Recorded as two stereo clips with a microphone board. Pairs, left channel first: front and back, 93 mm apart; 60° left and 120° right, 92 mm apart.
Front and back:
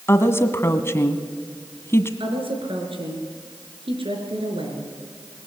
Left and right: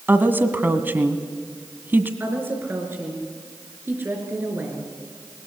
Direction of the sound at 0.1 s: 55° right.